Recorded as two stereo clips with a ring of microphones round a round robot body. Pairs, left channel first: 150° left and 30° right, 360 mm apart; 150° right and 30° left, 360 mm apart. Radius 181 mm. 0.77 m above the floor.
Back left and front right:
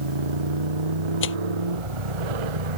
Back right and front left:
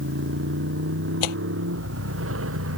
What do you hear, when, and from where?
0.0 s a motorcycle: 30° right; by 2.8 s 25° right
1.2 s tearing paper: 150° right